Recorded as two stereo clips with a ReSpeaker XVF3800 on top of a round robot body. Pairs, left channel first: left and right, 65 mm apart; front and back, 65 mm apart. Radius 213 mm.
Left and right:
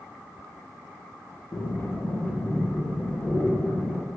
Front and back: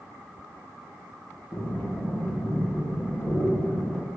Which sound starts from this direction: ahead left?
Breathing, at 1.5 s.